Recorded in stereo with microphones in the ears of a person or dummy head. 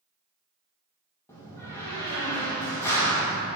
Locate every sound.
1.3 s a door slam: 20° left (ahead or behind), 1.3 m